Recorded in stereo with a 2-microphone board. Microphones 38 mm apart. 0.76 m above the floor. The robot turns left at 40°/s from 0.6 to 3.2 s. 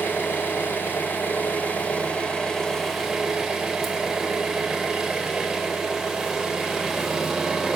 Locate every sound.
0.0 s an engine running: 95° left, 1.6 m; by 7.8 s 10° right, 1.6 m